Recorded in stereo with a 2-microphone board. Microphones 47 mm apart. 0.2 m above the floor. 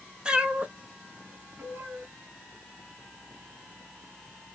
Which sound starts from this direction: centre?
A cat meowing, at 0.2 s.